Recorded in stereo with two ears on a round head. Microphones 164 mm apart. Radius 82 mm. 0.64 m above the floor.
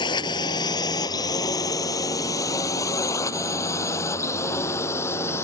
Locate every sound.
0.0 s a drone: 25° left (ahead or behind); by 5.4 s 15° left (ahead or behind)